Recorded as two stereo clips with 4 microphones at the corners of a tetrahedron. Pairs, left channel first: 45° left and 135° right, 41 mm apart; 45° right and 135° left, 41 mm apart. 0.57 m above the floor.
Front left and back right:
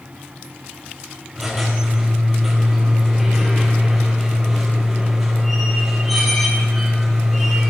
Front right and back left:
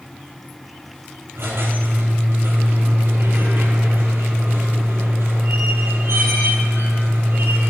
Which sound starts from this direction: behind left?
A squeak, at 1.4 s.